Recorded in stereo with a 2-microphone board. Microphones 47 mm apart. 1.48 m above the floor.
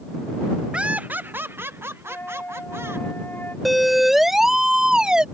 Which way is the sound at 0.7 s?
20° right (ahead or behind).